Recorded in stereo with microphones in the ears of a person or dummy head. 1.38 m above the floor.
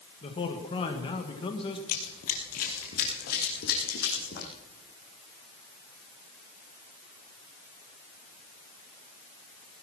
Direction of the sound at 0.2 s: 25° left (ahead or behind).